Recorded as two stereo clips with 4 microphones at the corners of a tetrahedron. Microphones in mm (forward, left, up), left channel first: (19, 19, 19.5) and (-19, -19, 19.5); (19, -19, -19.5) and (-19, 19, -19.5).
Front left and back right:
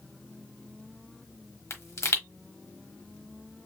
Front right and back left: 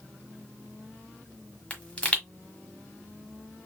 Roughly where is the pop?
Ahead.